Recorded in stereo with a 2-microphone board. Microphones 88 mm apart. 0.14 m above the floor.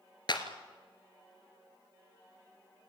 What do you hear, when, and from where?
0.3 s a clap: 60° left (ahead or behind), 2.5 m